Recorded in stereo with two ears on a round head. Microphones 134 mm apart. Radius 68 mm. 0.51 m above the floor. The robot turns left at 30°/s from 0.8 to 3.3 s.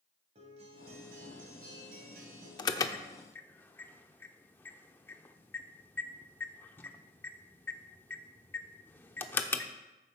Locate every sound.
0.3 s a guitar: 45° right, 2.5 m; by 2.5 s 95° right, 2.5 m
2.6 s an alarm: 30° left (ahead or behind), 0.6 m; by 9.7 s 15° left (ahead or behind), 0.6 m